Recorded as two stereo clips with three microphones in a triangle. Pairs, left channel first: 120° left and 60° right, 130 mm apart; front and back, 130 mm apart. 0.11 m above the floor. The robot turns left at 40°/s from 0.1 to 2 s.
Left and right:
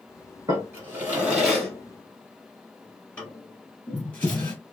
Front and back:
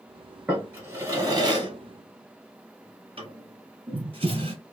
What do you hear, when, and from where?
0.5 s a drawer: 105° right, 1.2 m; by 4.5 s 165° right, 1.2 m